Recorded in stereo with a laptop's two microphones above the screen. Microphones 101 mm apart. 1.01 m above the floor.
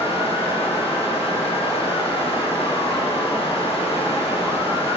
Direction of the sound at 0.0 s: 70° left (ahead or behind).